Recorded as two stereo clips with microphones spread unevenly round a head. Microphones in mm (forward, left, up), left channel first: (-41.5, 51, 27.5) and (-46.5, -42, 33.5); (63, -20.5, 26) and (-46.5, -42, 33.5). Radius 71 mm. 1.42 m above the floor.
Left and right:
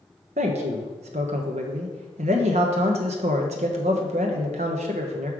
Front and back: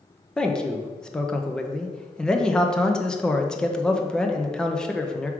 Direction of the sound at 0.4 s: 75° right.